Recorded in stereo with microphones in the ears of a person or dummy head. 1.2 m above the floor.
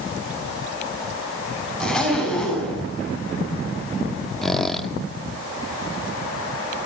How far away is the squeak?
About 1.4 m.